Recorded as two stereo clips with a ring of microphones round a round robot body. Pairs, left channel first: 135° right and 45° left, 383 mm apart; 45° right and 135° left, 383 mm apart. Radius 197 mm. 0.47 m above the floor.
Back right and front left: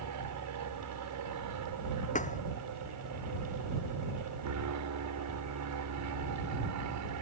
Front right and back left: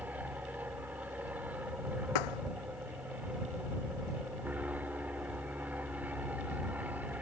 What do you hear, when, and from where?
0.0 s an aircraft: 50° left
2.1 s a thud: 65° right